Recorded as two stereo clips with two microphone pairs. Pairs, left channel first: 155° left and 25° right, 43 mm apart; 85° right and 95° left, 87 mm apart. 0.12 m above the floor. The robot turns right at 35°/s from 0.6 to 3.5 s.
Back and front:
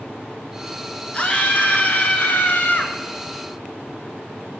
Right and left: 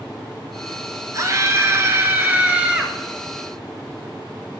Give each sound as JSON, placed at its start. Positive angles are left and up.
{"t": 1.1, "sound": "a scream", "azimuth_deg": 115, "distance_m": 1.4}